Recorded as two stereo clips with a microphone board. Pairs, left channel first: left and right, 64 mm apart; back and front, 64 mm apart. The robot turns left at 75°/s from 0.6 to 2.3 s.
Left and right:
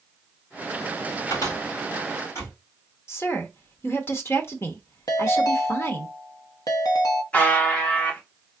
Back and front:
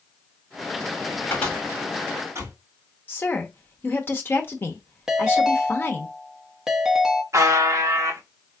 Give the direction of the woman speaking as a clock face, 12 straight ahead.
8 o'clock.